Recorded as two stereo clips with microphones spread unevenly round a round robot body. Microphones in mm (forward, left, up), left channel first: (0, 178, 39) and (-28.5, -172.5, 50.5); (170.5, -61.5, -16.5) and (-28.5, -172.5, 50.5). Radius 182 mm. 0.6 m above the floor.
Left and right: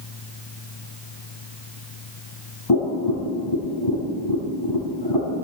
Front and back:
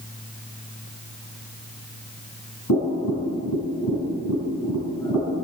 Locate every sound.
2.7 s tapping: 60° left, 4.5 m